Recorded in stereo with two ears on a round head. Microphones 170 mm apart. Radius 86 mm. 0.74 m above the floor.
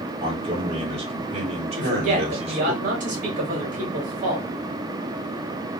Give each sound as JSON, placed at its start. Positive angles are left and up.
{"t": 0.2, "sound": "a man speaking", "side_deg": -30, "distance_m": 1.9}
{"t": 1.7, "sound": "a woman speaking", "side_deg": -45, "distance_m": 1.7}